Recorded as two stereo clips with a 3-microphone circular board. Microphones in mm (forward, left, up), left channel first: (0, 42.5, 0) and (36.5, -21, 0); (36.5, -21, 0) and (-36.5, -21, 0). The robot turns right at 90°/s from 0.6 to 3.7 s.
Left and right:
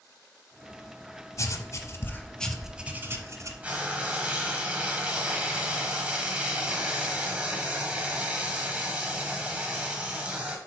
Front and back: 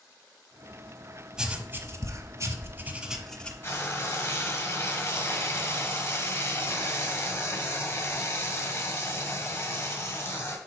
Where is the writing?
100° left, 0.7 m; by 3.5 s 65° right, 0.7 m.